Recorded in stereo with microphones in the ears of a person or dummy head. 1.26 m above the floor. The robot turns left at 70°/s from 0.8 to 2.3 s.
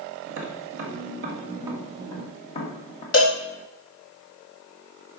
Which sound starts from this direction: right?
Tapping, at 0.3 s.